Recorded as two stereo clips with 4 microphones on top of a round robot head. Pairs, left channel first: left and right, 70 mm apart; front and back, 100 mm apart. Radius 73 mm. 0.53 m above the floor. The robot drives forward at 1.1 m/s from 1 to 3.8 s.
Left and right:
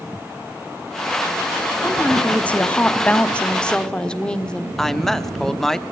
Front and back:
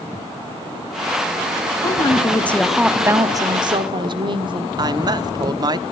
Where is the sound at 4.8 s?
170° left, 1.0 m.